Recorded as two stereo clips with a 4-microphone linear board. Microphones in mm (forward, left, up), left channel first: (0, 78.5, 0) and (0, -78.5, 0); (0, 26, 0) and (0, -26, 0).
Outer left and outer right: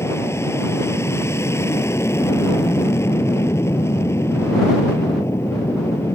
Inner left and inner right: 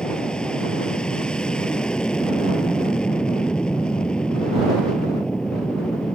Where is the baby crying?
No baby crying in this recording.